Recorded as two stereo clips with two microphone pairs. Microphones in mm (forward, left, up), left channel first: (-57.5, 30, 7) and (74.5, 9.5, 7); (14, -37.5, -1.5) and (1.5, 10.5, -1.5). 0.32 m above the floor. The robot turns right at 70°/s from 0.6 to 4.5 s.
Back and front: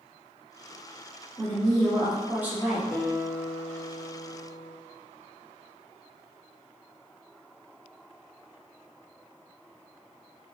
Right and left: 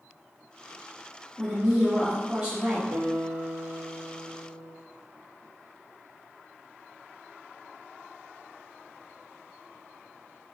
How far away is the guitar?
About 0.8 m.